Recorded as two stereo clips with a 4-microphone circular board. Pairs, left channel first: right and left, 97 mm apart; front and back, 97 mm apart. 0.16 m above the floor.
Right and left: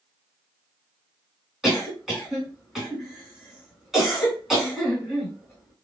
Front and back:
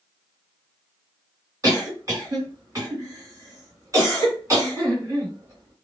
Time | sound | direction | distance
1.6 | a cough | 175° left | 2.0 m